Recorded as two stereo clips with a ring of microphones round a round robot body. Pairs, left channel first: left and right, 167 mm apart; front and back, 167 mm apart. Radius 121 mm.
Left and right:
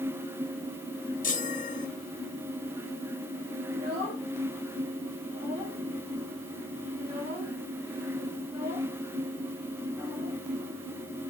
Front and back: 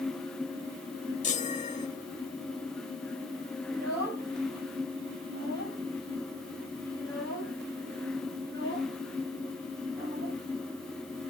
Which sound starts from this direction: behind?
A child speaking, at 3.7 s.